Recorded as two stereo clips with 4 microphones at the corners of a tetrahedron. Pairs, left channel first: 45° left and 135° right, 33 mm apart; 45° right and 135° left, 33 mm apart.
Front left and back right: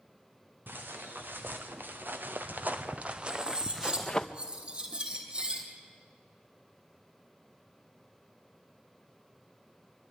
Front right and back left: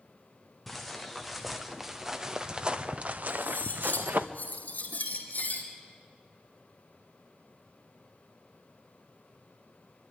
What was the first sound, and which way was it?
Footsteps, 135° right.